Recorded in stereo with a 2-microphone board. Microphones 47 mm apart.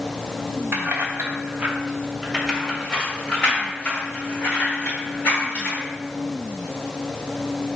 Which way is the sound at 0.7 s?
55° right (ahead or behind).